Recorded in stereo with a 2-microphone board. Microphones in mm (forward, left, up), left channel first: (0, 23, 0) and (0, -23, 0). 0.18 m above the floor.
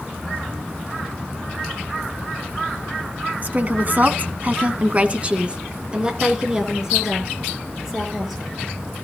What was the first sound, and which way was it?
A woman speaking, 40° right (ahead or behind).